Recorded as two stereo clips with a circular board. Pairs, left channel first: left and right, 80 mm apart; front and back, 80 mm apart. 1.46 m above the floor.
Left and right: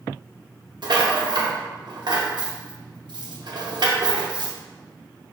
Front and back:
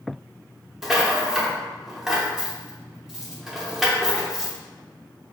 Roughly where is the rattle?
Right.